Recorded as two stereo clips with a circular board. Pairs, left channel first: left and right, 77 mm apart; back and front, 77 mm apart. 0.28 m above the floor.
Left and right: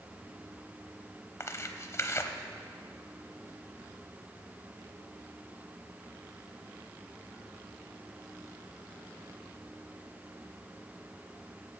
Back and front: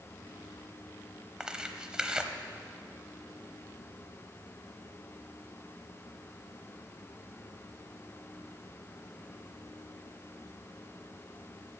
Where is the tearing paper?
75° left, 0.9 m.